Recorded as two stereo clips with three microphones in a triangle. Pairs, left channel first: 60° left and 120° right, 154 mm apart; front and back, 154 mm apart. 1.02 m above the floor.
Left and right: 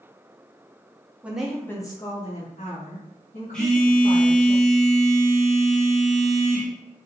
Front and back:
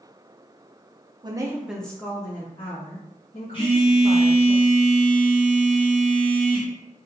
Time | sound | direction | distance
1.2 | a woman speaking | 170° left | 0.5 m
3.5 | a phone buzzing | 20° right | 0.9 m